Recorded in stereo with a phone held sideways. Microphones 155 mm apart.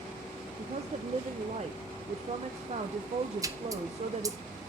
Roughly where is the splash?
Right.